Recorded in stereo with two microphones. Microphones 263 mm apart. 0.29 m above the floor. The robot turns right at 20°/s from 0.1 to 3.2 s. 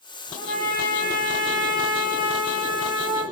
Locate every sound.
0.4 s a trumpet: 155° right, 6.5 m; by 3.2 s 95° right, 6.5 m